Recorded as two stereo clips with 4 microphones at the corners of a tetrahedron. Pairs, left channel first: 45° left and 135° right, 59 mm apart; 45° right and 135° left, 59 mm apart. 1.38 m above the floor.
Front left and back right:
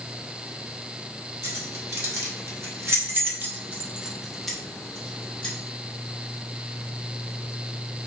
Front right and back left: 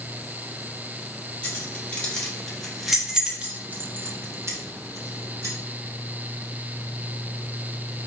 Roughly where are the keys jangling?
Right.